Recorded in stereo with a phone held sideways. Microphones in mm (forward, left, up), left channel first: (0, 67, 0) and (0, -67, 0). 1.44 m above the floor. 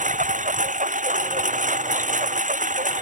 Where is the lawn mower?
75° right (ahead or behind).